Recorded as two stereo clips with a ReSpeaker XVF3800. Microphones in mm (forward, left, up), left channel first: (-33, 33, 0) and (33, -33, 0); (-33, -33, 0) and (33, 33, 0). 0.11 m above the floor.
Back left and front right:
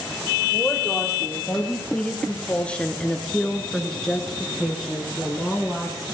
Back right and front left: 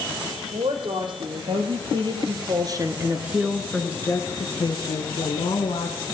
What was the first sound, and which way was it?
A woman speaking, 55° left.